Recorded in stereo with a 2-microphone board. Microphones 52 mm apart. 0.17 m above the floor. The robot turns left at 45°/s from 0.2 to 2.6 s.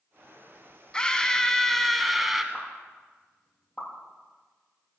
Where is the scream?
15° left (ahead or behind), 1.3 m; by 2.4 s 5° right (ahead or behind), 1.3 m.